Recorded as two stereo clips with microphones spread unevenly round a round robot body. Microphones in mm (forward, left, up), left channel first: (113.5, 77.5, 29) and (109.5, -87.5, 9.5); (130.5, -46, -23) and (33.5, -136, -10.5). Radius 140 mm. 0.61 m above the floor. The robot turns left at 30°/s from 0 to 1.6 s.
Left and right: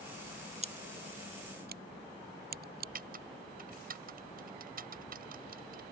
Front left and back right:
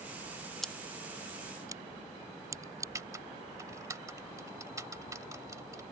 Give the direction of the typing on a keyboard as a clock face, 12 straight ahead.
2 o'clock.